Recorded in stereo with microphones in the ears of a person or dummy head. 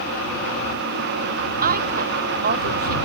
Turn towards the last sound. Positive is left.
turn(degrees=-45)  # may be behind; listen again after turning